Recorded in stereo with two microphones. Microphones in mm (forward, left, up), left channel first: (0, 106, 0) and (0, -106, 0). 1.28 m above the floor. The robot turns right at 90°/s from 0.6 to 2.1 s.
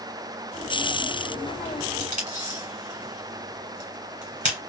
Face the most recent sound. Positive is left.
turn(degrees=-35)  # may be behind; listen again after turning